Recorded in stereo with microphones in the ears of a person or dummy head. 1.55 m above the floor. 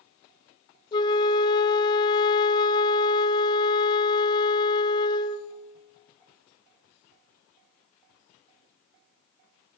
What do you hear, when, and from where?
0.9 s a flute: 30° left (ahead or behind), 0.7 m